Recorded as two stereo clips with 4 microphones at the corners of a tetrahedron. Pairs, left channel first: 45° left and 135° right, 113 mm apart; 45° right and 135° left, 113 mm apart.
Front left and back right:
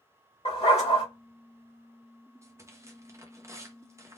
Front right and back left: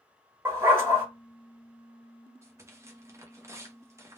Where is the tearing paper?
Straight behind, 0.7 m.